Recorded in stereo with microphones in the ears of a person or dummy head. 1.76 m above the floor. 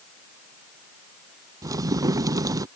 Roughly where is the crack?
Centre.